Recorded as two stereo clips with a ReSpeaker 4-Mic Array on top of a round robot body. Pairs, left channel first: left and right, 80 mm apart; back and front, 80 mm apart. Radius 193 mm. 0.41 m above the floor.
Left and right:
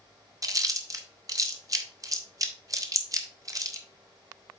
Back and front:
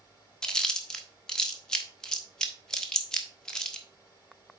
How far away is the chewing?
About 1.6 m.